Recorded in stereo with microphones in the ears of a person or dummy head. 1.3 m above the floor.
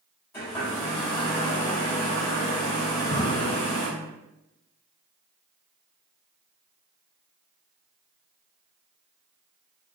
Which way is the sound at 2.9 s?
40° left (ahead or behind).